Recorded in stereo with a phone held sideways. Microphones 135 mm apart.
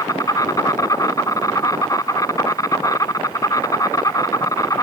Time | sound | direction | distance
0.0 | an insect | 25° left (ahead or behind) | ?